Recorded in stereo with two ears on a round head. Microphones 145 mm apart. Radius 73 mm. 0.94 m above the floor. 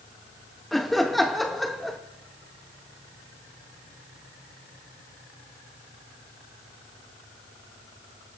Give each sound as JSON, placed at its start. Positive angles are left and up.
{"t": 0.7, "sound": "laughter", "side_deg": 0, "distance_m": 0.6}